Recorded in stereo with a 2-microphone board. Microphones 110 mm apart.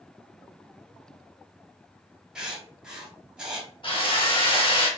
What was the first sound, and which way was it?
Writing, 10° right (ahead or behind).